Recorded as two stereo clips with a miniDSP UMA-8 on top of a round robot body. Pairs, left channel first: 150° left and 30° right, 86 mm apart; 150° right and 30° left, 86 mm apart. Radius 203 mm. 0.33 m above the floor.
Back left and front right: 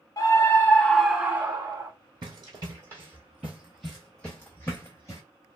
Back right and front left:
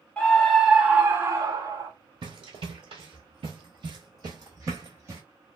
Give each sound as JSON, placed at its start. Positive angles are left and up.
{"t": 0.2, "sound": "a scream", "azimuth_deg": 140, "distance_m": 1.3}
{"t": 2.2, "sound": "running footsteps", "azimuth_deg": 5, "distance_m": 1.0}